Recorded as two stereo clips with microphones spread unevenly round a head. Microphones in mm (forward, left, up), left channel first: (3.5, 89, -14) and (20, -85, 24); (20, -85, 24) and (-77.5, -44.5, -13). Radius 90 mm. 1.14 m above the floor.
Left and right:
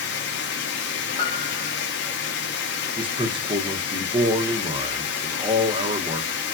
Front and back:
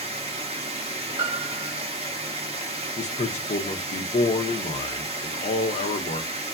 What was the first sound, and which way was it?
Running water, 105° left.